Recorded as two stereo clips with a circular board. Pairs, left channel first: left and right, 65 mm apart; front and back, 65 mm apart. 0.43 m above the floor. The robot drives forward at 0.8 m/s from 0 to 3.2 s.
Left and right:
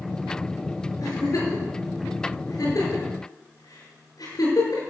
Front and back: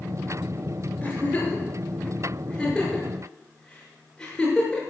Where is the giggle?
65° left, 7 m; by 4.8 s 80° left, 6.5 m.